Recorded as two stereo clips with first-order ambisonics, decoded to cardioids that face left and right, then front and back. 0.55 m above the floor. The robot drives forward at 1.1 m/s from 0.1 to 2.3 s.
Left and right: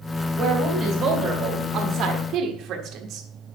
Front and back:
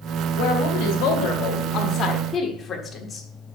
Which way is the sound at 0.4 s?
20° right.